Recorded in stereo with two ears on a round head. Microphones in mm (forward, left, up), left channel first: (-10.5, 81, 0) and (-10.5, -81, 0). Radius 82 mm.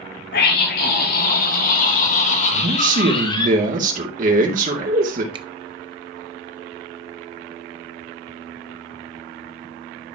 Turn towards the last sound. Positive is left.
turn(degrees=-30)  # may be behind; listen again after turning